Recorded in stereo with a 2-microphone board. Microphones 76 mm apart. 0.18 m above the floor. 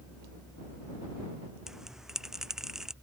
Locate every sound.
1.7 s a bell: 5° right (ahead or behind)